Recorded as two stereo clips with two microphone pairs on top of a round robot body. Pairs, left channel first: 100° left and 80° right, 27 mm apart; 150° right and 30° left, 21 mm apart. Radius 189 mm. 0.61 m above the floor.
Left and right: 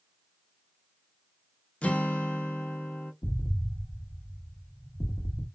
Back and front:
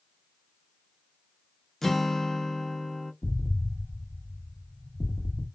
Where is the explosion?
120° left, 1.2 m.